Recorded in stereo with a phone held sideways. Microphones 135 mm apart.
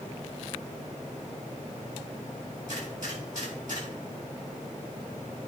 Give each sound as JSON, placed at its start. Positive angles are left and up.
{"t": 2.7, "sound": "a gunshot", "side_deg": -70, "distance_m": 5.0}